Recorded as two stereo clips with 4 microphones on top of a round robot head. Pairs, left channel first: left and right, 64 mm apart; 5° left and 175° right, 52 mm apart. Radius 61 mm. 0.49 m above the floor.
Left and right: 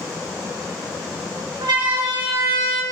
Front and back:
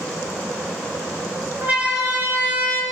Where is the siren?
110° right, 6.5 m; by 2.8 s 120° right, 6.5 m.